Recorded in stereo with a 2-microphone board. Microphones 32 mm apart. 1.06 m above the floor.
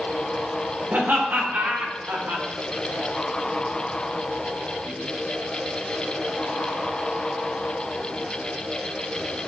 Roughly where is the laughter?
Right.